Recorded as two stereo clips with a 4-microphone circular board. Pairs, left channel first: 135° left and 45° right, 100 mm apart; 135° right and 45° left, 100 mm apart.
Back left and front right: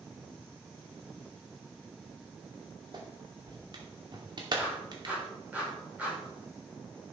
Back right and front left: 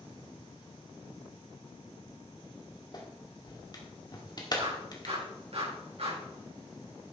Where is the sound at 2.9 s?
90° right, 2 m.